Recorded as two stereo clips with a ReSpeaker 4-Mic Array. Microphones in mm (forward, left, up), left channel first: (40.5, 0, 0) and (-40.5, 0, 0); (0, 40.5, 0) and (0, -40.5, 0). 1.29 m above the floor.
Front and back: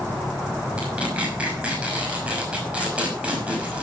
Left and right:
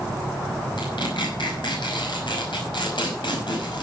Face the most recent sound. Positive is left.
turn(degrees=105)